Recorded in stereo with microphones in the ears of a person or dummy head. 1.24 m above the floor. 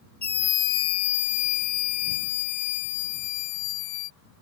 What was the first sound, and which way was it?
A scream, 10° left (ahead or behind).